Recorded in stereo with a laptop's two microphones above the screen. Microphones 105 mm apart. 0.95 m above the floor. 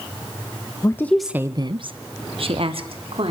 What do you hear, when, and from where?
0.8 s a woman speaking: 30° left (ahead or behind), 1.0 m; by 3.3 s 60° right (ahead or behind), 3.5 m